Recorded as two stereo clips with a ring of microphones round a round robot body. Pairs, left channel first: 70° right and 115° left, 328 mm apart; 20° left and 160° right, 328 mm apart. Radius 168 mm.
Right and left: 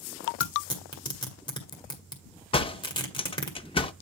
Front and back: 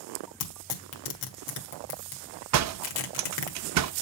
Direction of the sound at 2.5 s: 140° right.